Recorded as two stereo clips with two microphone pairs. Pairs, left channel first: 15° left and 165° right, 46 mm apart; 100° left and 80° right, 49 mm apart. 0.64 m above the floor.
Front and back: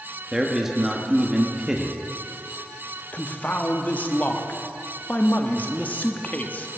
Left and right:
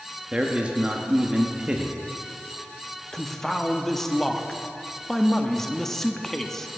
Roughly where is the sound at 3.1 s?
Ahead left.